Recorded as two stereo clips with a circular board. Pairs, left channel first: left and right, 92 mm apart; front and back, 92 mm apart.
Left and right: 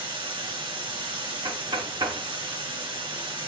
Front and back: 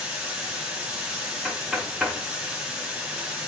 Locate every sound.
0.0 s running water: 95° right, 2 m
1.4 s knocking: 90° right, 1.1 m